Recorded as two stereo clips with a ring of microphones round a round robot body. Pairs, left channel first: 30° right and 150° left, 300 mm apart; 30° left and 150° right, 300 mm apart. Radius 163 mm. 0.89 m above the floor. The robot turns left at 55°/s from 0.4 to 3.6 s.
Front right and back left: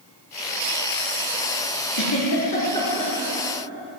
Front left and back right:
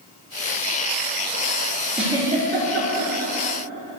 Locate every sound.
1.9 s a giggle: 60° right, 6.5 m; by 3.1 s 125° right, 6.5 m